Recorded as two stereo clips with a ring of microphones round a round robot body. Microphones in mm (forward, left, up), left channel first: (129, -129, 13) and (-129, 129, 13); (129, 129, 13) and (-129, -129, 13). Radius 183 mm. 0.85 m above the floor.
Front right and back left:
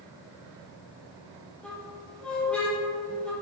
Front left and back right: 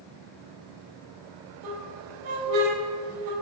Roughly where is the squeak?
Behind right.